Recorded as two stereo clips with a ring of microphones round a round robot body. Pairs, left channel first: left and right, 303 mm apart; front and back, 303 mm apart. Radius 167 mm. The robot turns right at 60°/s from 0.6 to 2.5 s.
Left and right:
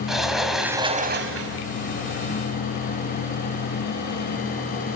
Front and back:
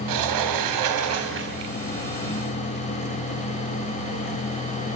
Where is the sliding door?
Straight behind, 2.5 m; by 1.6 s 120° right, 2.5 m.